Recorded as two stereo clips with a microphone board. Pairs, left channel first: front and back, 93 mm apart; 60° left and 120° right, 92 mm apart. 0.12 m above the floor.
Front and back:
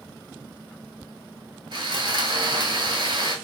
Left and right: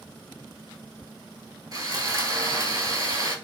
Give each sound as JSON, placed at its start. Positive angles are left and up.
{"t": 1.7, "sound": "sawing", "azimuth_deg": -160, "distance_m": 0.8}